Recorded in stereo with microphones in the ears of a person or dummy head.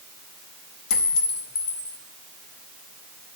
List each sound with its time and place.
0.9 s a clink: 45° left (ahead or behind), 0.7 m